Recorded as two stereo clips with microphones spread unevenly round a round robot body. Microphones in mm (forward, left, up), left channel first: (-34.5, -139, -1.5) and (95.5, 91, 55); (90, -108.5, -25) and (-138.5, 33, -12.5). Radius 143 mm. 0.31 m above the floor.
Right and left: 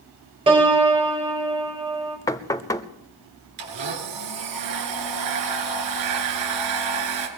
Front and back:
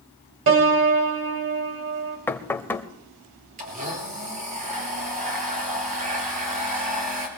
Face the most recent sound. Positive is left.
turn(degrees=85)